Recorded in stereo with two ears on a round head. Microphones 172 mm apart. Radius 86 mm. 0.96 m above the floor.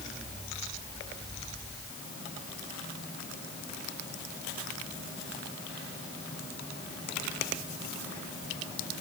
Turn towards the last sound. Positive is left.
No sound to turn to.